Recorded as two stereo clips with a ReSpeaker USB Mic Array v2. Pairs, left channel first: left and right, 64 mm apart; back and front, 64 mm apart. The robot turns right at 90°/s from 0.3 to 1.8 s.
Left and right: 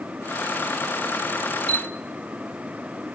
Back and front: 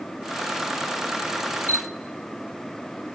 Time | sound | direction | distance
1.7 | a camera shutter | 15° left | 0.9 m